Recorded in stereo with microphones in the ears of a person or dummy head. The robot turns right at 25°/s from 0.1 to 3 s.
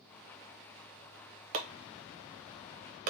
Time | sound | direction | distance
1.5 | chopping | 40° right (ahead or behind) | 0.8 m